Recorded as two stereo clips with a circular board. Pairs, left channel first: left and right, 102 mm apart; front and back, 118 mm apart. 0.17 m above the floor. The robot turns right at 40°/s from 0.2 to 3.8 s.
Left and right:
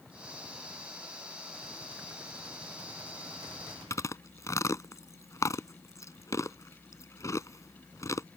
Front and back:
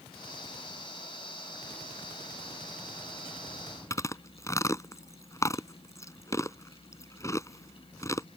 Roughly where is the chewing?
Ahead left.